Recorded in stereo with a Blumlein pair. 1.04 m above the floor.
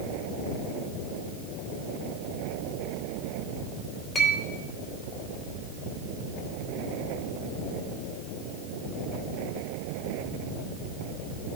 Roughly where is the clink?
Ahead.